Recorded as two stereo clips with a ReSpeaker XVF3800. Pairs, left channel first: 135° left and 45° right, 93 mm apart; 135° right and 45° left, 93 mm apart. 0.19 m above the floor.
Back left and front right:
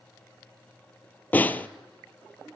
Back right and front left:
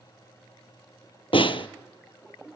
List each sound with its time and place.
1.3 s a snare drum: 155° right, 0.7 m